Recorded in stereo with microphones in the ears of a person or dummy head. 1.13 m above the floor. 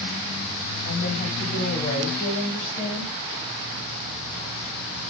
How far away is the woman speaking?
About 7.5 m.